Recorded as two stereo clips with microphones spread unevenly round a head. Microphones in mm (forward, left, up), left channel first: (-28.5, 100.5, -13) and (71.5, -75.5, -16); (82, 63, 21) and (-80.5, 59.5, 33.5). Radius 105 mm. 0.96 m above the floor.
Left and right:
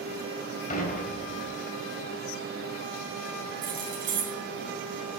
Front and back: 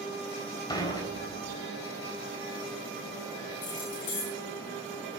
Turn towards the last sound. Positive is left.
turn(degrees=-10)